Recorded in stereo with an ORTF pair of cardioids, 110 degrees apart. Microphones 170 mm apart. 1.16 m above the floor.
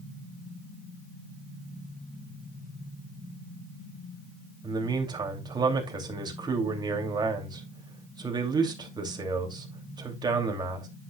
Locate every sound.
4.6 s a man speaking: 25° right, 2.5 m